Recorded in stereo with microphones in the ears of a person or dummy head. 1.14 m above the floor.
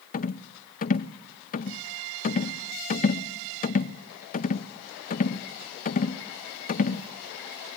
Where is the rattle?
40° left (ahead or behind), 0.5 m.